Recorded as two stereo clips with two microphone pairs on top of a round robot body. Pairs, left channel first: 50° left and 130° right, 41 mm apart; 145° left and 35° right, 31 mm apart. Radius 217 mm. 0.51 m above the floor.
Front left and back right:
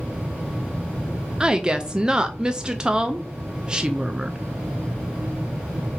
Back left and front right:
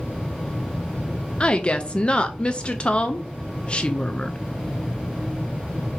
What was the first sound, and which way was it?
A woman speaking, 160° left.